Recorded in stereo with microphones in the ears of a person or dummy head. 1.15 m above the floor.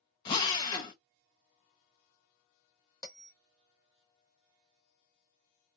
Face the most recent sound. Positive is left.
turn(degrees=20)  # may be behind; listen again after turning